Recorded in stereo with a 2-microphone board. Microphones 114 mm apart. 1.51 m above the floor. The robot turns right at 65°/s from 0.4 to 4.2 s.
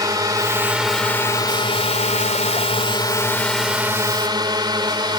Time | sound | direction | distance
0.0 | a drone | 35° right (ahead or behind) | ?